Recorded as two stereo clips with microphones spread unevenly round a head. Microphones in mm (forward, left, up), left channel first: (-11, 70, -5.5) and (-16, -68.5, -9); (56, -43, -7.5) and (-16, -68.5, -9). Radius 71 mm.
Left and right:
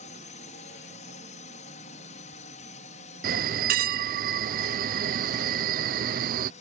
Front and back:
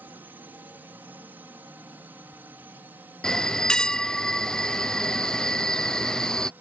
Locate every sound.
0.0 s a drone: 125° left
3.2 s a bell: 60° right